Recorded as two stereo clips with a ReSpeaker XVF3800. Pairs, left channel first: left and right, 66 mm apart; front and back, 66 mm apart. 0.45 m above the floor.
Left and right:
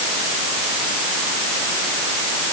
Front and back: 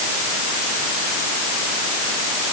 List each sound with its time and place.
Only background noise.